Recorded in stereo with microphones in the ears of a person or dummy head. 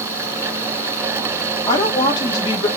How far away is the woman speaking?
About 0.9 m.